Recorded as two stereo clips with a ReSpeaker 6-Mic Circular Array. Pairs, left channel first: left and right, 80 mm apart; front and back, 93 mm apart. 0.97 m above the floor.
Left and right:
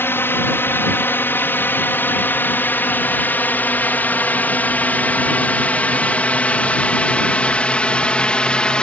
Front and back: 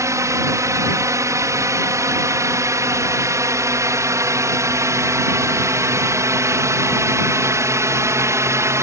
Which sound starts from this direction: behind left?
A drone, at 0.0 s.